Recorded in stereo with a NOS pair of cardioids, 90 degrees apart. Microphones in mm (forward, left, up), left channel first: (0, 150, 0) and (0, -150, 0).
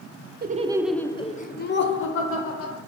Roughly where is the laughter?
Ahead right.